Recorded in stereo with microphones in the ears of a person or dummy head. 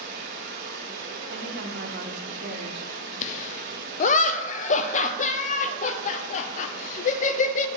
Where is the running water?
50° right (ahead or behind), 2 m.